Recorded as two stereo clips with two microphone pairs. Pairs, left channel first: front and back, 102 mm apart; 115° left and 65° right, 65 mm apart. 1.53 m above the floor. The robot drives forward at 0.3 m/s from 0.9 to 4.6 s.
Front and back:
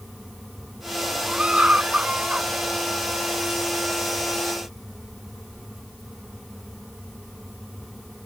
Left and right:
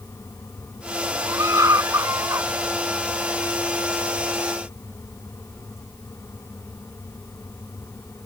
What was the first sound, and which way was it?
A scream, 100° right.